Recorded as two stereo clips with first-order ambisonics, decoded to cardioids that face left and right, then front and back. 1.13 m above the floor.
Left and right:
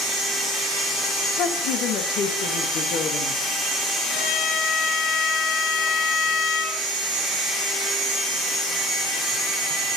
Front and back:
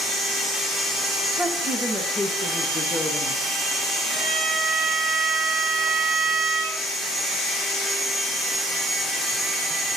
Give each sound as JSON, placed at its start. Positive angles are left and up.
{"t": 1.4, "sound": "a woman speaking", "azimuth_deg": 110, "distance_m": 1.4}
{"t": 4.1, "sound": "a violin", "azimuth_deg": 85, "distance_m": 7.5}